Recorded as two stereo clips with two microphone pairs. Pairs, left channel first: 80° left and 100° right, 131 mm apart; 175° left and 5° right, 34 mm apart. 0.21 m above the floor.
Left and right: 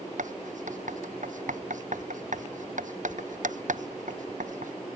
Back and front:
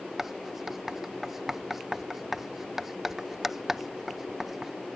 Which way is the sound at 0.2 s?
85° right.